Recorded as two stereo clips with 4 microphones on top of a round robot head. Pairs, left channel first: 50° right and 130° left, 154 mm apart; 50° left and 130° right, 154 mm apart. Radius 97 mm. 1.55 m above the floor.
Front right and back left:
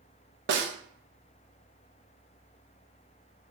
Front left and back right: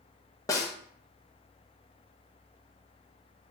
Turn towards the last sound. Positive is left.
turn(degrees=120)